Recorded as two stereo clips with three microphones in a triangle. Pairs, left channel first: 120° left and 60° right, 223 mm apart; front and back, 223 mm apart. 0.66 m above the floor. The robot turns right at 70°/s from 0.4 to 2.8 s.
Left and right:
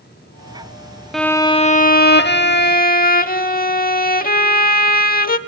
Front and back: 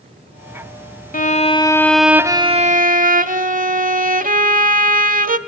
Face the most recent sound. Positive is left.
turn(degrees=145)